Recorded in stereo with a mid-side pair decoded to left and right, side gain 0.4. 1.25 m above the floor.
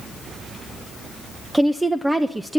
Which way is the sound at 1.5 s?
15° right.